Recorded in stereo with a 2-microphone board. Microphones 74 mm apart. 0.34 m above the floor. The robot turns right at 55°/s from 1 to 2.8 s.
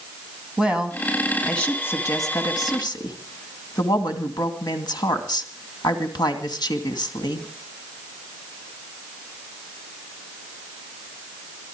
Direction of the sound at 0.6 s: 15° right.